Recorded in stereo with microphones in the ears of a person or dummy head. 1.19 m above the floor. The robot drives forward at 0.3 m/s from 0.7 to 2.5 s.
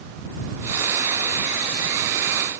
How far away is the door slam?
No door slam in this recording.